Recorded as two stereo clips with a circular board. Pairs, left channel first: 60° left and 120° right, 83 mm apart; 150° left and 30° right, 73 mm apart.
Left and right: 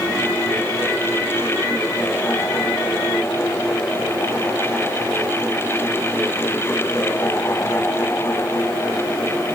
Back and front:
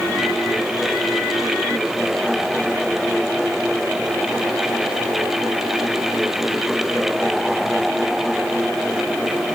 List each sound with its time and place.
Only background noise.